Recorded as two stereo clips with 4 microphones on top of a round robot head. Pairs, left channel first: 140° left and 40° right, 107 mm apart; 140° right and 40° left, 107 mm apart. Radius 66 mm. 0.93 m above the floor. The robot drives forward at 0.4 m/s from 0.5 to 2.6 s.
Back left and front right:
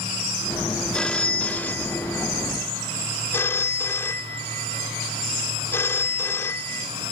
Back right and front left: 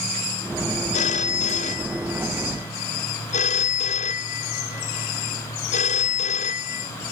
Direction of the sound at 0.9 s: 140° right.